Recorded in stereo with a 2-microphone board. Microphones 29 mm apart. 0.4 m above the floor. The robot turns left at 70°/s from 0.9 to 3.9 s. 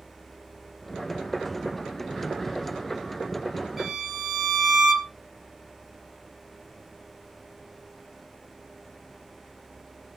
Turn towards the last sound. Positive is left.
turn(degrees=-20)  # may be behind; listen again after turning